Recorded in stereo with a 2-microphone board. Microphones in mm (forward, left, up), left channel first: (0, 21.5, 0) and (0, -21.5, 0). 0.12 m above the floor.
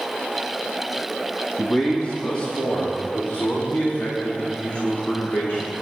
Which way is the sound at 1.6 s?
20° left (ahead or behind).